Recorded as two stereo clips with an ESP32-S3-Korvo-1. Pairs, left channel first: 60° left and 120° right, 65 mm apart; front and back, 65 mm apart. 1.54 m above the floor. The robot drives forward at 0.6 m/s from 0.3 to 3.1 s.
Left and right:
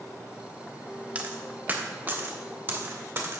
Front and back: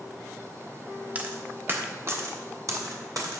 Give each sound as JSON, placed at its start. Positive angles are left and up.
{"t": 1.1, "sound": "a dropped coin", "azimuth_deg": -155, "distance_m": 1.1}